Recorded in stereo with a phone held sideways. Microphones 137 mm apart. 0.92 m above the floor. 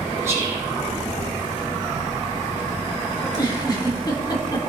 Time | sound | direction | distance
0.2 | whispering | 20° right (ahead or behind) | 5 m
3.2 | a giggle | 30° left (ahead or behind) | 2.5 m